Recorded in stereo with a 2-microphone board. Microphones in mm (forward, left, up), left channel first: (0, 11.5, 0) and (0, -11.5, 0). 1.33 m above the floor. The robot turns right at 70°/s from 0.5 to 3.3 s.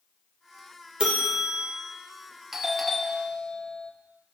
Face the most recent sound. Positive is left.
turn(degrees=40)